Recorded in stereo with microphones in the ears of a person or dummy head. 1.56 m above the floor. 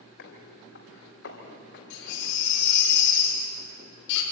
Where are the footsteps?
60° left (ahead or behind), 3.5 m; by 2.4 s 55° left (ahead or behind), 4.5 m.